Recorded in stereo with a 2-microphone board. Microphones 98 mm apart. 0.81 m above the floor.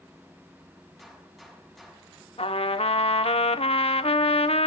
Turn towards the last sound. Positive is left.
turn(degrees=75)  # may be behind; listen again after turning